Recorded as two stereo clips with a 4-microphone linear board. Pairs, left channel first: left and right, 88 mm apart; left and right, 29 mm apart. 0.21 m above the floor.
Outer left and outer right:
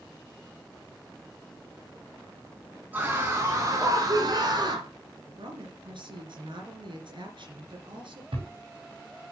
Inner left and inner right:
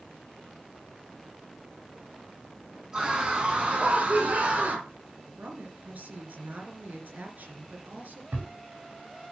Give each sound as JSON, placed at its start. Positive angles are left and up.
{"t": 2.9, "sound": "a scream", "side_deg": -20, "distance_m": 2.0}
{"t": 5.4, "sound": "a woman speaking", "side_deg": -65, "distance_m": 3.0}
{"t": 8.3, "sound": "a thud", "side_deg": -80, "distance_m": 6.0}